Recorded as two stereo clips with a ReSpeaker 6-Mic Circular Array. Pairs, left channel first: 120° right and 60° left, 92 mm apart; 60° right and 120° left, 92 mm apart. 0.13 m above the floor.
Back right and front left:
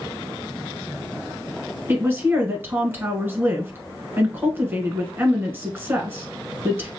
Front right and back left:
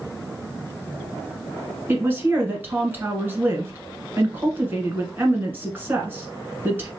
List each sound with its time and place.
1.9 s a woman speaking: 85° left, 1.1 m